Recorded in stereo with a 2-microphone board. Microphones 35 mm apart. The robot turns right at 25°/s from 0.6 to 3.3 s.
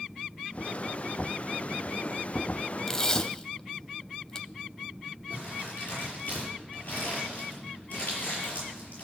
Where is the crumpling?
40° left (ahead or behind), 6.5 m.